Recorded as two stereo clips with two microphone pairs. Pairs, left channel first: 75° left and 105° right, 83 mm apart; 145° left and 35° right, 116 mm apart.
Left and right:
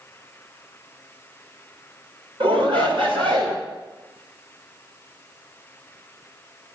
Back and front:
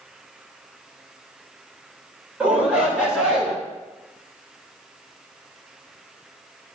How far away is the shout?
About 3 m.